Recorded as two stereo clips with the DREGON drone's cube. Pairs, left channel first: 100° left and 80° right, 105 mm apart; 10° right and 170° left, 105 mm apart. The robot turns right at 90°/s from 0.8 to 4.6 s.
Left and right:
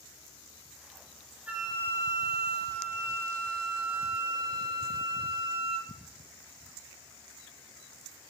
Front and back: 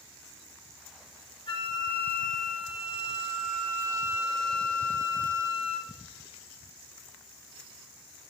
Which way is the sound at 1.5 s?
5° right.